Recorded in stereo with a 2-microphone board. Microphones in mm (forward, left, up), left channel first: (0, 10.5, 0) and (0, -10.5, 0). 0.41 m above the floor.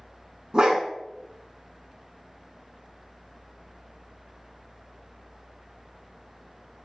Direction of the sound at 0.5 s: 45° right (ahead or behind).